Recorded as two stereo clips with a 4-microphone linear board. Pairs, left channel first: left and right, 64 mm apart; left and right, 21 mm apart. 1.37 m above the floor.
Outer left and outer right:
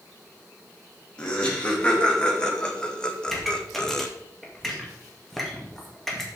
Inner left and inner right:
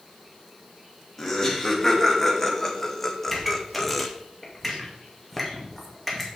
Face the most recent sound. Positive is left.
turn(degrees=5)  # may be behind; listen again after turning